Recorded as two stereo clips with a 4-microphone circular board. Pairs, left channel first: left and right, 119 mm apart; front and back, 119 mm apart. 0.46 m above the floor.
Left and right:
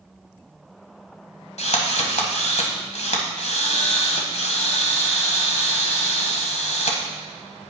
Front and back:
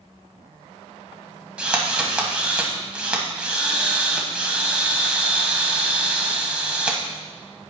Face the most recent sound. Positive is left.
turn(degrees=100)